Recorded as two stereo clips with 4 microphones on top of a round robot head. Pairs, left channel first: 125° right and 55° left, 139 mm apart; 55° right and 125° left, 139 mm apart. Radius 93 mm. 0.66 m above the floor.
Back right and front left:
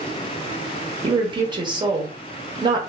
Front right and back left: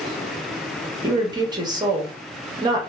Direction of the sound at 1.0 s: 85° left.